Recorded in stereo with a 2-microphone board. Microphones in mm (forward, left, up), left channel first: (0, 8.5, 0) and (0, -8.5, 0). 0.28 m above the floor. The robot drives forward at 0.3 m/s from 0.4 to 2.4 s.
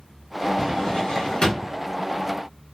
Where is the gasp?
No gasp in this recording.